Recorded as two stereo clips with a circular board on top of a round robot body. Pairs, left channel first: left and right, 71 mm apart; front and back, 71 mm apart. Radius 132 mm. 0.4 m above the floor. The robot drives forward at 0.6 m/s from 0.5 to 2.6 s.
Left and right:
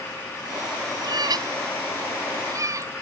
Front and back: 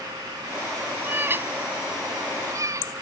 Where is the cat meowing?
115° right; by 2.9 s 135° right.